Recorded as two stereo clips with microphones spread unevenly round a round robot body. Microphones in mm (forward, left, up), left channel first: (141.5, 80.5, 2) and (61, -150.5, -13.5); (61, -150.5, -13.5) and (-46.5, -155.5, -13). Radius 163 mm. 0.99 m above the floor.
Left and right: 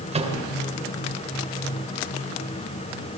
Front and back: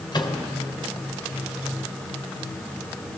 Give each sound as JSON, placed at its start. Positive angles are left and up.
{"t": 0.1, "sound": "a microwave", "azimuth_deg": -45, "distance_m": 3.0}